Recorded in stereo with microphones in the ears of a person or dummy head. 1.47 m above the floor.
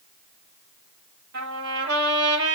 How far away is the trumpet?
About 5.5 m.